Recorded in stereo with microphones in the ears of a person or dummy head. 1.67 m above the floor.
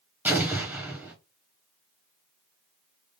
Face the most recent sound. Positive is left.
turn(degrees=-10)  # may be behind; listen again after turning